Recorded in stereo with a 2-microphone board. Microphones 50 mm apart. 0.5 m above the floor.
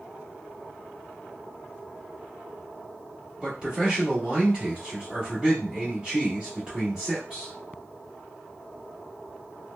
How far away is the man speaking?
About 1.4 m.